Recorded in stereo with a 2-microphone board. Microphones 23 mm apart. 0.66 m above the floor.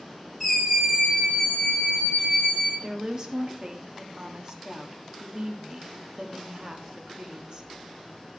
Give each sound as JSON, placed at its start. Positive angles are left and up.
{"t": 0.4, "sound": "a scream", "side_deg": 5, "distance_m": 5.5}
{"t": 2.8, "sound": "a woman speaking", "side_deg": -35, "distance_m": 1.2}